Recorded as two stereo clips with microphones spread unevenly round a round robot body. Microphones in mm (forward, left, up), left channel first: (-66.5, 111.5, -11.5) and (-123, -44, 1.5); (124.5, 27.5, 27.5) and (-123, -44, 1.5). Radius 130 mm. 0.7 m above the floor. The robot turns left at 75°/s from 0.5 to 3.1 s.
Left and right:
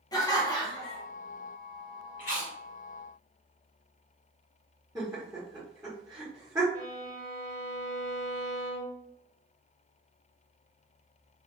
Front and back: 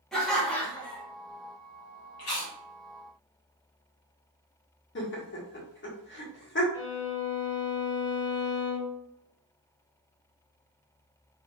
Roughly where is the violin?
Ahead.